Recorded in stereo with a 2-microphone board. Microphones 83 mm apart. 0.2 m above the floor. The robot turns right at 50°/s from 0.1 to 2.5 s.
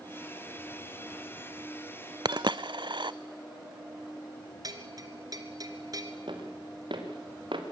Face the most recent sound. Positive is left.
turn(degrees=-80)